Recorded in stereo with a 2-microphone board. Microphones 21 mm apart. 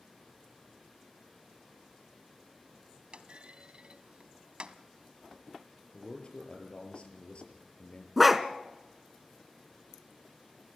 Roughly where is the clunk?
Right.